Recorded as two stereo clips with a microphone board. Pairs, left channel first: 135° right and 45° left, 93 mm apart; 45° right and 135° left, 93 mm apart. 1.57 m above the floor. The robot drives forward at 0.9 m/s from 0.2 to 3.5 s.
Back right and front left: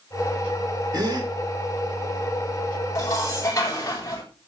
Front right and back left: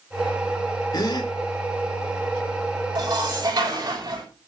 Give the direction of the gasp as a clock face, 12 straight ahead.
12 o'clock.